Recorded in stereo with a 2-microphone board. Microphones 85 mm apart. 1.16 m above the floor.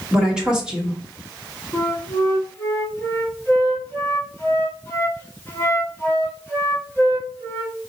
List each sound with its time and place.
0.1 s a woman speaking: 10° right (ahead or behind), 1.3 m
1.7 s a flute: 25° left (ahead or behind), 1.1 m